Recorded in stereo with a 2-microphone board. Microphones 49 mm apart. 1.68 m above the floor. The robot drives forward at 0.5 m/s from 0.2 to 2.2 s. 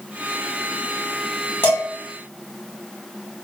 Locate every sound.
1.6 s dishes clattering: 45° left (ahead or behind), 1.2 m